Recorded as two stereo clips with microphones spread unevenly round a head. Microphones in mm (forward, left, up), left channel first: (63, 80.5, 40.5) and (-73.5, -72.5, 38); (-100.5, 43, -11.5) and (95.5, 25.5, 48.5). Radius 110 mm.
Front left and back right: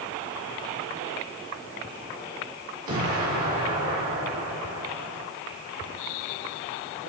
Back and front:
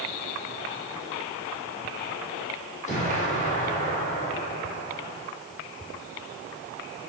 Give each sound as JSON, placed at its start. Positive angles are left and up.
{"t": 2.9, "sound": "an explosion", "azimuth_deg": -130, "distance_m": 1.9}